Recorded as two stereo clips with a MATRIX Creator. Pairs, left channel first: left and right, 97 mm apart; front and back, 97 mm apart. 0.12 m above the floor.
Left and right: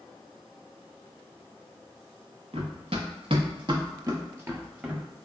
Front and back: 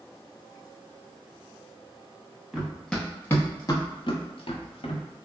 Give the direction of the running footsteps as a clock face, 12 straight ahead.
3 o'clock.